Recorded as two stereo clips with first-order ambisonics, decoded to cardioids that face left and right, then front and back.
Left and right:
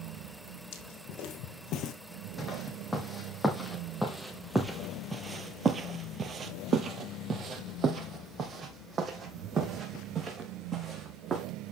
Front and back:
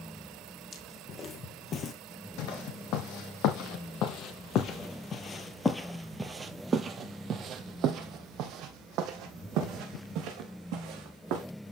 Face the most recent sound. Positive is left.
turn(degrees=-155)